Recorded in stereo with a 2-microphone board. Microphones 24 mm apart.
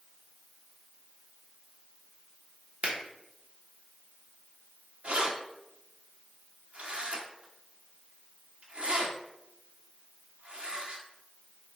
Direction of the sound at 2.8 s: 60° right (ahead or behind).